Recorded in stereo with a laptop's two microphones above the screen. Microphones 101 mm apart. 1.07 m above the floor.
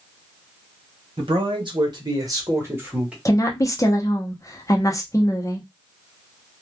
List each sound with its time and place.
1.2 s a man speaking: 60° right (ahead or behind), 1.3 m; by 3.1 s 10° right (ahead or behind), 1.0 m
3.2 s a woman speaking: 30° left (ahead or behind), 0.8 m